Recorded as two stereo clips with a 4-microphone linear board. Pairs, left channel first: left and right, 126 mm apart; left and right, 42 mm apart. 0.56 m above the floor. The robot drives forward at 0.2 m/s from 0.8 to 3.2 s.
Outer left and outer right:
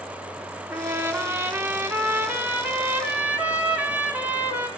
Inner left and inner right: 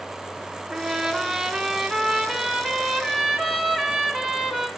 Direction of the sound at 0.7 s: 20° right (ahead or behind).